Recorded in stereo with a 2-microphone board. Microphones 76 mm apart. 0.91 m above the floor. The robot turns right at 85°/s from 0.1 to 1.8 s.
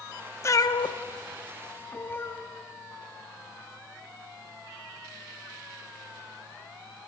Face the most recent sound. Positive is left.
turn(degrees=25)  # may be behind; listen again after turning